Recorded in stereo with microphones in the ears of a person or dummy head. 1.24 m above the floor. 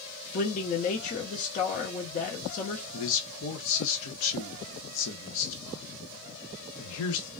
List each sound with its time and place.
0.3 s a man speaking: 40° left (ahead or behind), 0.9 m
2.9 s a man speaking: 70° left (ahead or behind), 0.9 m